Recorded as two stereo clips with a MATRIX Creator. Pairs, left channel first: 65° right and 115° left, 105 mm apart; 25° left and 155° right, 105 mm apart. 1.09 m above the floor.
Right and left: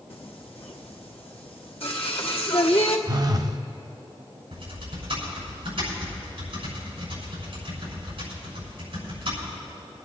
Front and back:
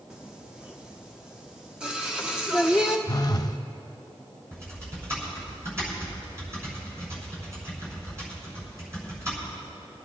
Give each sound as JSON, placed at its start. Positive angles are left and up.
{"t": 0.1, "sound": "singing", "azimuth_deg": -75, "distance_m": 1.1}
{"t": 3.1, "sound": "a phone buzzing", "azimuth_deg": 70, "distance_m": 0.6}
{"t": 4.5, "sound": "typing on a keyboard", "azimuth_deg": 145, "distance_m": 6.5}